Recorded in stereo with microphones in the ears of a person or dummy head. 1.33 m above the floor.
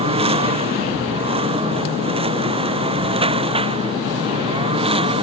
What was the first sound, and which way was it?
A lawn mower, 30° right (ahead or behind).